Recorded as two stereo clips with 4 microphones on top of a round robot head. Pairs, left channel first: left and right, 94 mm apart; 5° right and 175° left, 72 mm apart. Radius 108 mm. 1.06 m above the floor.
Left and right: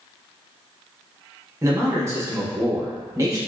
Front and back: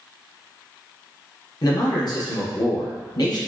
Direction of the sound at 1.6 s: 30° right.